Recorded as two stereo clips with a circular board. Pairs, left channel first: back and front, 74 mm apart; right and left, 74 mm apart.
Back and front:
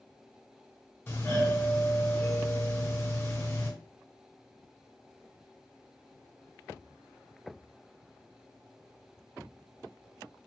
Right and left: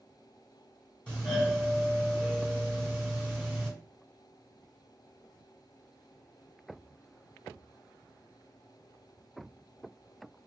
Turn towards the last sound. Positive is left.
turn(degrees=-155)